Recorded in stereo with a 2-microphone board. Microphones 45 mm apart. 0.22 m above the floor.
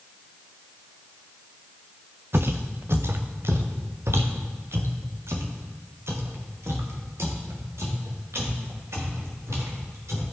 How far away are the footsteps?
About 1.0 m.